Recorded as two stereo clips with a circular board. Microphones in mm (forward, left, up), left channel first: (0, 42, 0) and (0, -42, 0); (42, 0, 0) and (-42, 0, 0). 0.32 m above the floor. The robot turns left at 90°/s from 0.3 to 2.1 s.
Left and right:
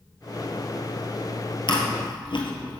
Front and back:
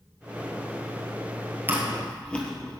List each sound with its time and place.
1.7 s chewing: 115° left, 1.4 m; by 2.8 s 75° left, 1.4 m